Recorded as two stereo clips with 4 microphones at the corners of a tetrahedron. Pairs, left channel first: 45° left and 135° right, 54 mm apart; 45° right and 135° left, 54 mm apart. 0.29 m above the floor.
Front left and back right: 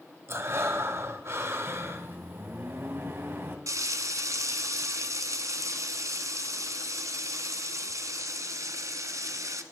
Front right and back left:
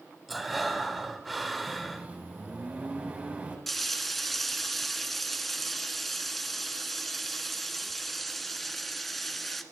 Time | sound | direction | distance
0.3 | breathing | 140° right | 1.4 m
1.7 | a microwave | 170° right | 2 m
3.7 | frying | 135° right | 0.9 m